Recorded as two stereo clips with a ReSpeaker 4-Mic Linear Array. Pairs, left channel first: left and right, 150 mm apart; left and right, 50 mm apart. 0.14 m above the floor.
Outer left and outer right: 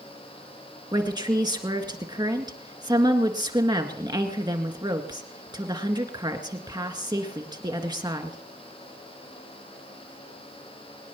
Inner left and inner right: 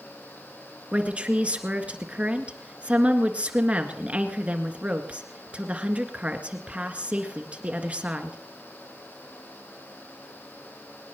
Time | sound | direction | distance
0.9 | a woman speaking | 30° right (ahead or behind) | 1.9 m